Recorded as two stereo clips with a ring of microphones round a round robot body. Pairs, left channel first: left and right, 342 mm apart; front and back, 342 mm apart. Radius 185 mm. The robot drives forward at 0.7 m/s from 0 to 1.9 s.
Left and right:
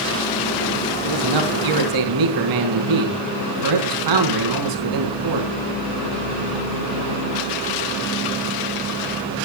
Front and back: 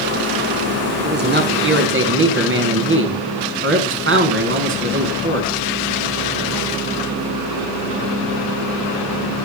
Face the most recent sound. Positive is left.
turn(degrees=-125)